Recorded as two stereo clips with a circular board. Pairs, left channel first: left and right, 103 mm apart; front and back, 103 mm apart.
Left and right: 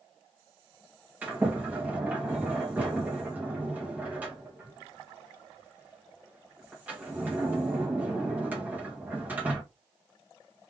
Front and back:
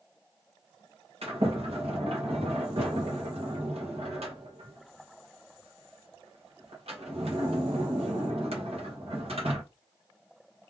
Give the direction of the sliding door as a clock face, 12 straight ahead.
5 o'clock.